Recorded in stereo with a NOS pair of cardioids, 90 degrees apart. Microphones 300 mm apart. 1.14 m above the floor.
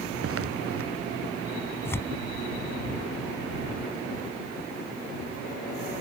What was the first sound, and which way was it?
Footsteps, 50° right.